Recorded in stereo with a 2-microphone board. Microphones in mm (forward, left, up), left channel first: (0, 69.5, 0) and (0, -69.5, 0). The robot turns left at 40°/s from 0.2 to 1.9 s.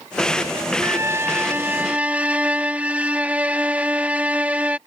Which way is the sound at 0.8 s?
20° right (ahead or behind).